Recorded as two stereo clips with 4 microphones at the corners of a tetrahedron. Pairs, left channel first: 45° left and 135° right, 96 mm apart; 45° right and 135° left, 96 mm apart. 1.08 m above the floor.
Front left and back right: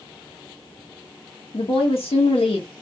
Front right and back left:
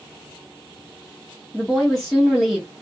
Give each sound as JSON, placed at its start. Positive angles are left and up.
{"t": 1.5, "sound": "a woman speaking", "azimuth_deg": 40, "distance_m": 0.8}